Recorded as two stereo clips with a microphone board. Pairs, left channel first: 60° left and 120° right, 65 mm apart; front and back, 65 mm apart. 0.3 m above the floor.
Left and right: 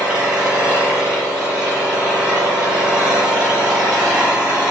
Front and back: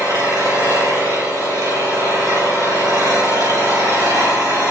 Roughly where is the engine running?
Behind.